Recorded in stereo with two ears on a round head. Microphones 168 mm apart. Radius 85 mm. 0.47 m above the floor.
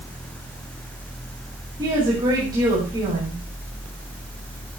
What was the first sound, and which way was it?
A woman speaking, 25° right (ahead or behind).